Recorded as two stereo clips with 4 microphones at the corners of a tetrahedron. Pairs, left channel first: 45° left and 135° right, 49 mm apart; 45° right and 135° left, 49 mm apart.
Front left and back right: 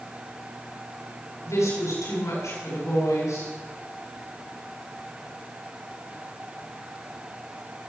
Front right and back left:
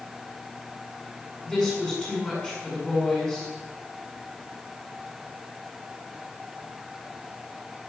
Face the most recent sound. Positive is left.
turn(degrees=30)